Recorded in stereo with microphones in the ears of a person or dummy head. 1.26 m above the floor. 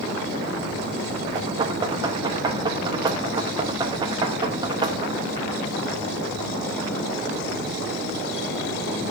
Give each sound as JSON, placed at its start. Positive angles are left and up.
{"t": 1.4, "sound": "knocking", "side_deg": -25, "distance_m": 1.0}